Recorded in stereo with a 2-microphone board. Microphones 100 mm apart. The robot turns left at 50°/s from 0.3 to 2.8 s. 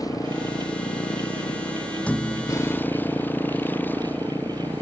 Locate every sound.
0.0 s a motorcycle: 145° left; by 4.8 s 20° left
2.1 s a thud: 165° left; by 2.7 s 135° left